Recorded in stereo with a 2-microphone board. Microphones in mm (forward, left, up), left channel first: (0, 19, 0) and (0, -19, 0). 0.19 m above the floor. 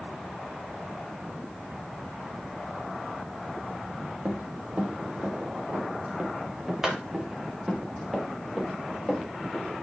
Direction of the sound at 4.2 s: 45° right (ahead or behind).